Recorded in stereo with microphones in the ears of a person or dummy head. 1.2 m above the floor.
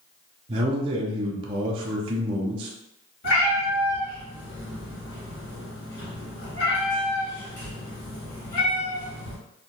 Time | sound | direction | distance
0.5 | a man speaking | 30° right (ahead or behind) | 0.5 m
3.2 | a cat meowing | 55° left (ahead or behind) | 1.9 m